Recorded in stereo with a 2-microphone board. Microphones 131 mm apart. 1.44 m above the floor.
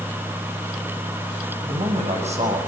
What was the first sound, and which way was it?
A man speaking, 50° right (ahead or behind).